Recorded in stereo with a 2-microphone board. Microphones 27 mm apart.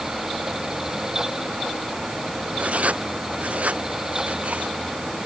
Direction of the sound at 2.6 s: 60° right (ahead or behind).